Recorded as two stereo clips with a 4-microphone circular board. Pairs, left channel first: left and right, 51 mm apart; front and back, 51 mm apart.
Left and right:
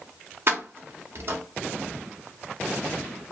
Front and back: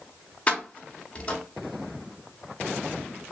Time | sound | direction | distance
0.5 | keys jangling | 60° right | 0.6 m